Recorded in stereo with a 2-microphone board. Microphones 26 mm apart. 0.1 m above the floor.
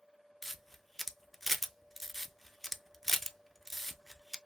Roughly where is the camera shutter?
Centre.